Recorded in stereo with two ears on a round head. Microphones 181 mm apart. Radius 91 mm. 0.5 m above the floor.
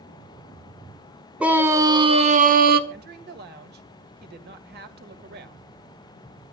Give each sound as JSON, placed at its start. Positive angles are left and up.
{"t": 1.4, "sound": "a scream", "side_deg": -5, "distance_m": 2.0}
{"t": 2.9, "sound": "a woman speaking", "side_deg": -50, "distance_m": 1.7}